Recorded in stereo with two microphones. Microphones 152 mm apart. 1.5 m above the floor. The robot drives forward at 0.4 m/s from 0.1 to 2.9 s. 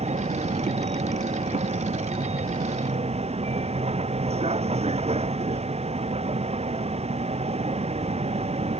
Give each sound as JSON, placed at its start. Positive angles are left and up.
{"t": 0.0, "sound": "a vehicle", "side_deg": -45}